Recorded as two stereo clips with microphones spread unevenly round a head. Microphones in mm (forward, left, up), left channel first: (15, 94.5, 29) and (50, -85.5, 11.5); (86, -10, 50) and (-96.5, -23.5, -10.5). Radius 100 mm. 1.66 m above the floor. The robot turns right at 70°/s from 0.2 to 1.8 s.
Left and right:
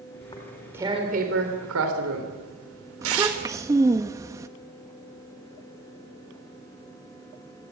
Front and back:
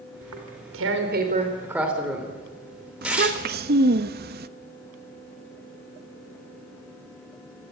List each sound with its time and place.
0.2 s tearing paper: 160° left, 4 m; by 3.6 s 85° right, 4 m
3.0 s a child speaking: 150° right, 1.0 m